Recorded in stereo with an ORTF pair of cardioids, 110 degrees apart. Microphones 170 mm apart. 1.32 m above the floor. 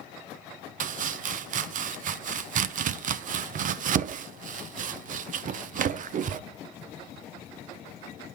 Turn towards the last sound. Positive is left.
turn(degrees=-50)